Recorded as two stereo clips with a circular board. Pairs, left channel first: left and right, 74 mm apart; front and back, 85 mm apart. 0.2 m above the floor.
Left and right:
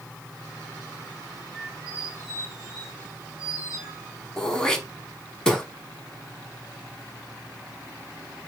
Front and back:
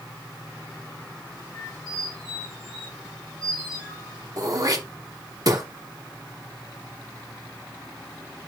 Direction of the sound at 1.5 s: 10° right.